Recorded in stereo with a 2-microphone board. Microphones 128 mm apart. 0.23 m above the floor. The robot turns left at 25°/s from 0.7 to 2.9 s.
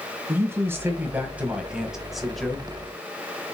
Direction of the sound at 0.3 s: 140° right.